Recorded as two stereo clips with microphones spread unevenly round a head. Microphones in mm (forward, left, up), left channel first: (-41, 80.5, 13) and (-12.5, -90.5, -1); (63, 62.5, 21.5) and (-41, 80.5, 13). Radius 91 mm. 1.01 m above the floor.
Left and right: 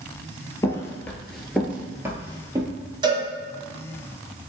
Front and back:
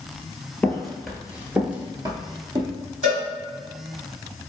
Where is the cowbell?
145° right, 1.4 m.